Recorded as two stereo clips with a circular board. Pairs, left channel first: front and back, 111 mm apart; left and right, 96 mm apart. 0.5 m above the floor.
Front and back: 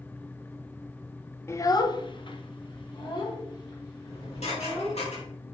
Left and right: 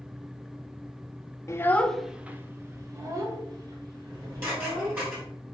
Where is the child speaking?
50° left, 0.7 m; by 5.0 s 50° right, 3 m.